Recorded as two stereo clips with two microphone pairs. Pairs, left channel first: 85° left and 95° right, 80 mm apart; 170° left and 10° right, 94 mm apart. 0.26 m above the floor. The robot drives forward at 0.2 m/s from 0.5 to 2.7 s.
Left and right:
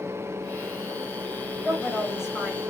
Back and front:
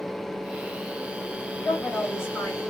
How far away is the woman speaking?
About 1.1 m.